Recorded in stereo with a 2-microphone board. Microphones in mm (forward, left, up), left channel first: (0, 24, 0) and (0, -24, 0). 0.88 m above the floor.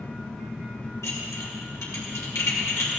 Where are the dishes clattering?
80° left, 2.5 m.